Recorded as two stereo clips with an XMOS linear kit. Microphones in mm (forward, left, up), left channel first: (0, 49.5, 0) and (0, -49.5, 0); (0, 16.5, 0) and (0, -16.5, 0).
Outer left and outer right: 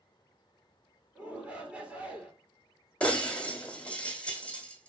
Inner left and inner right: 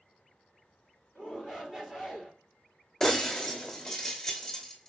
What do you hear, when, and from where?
1.1 s a shout: 15° right (ahead or behind), 3 m
3.0 s breaking glass: 10° left (ahead or behind), 2.5 m